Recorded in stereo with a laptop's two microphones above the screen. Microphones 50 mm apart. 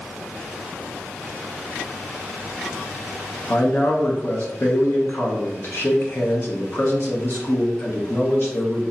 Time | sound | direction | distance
3.5 | a man speaking | 45° left (ahead or behind) | 0.9 m